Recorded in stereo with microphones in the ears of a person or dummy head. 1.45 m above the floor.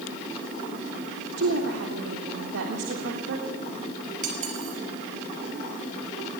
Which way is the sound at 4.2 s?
45° right (ahead or behind).